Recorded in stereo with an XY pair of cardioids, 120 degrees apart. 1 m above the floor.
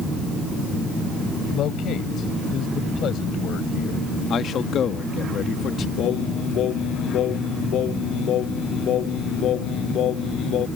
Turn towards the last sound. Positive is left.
turn(degrees=65)